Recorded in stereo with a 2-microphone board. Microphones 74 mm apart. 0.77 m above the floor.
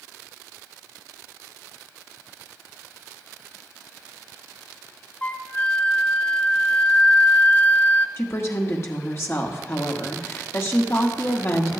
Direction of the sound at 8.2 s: 40° left (ahead or behind).